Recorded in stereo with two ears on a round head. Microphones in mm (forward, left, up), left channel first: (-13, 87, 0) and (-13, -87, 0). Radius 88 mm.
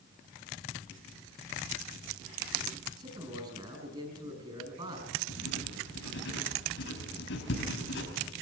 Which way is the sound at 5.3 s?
65° left (ahead or behind).